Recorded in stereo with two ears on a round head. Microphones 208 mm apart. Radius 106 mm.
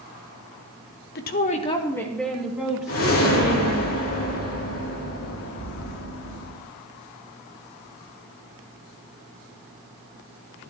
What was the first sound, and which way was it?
A woman speaking, 45° left (ahead or behind).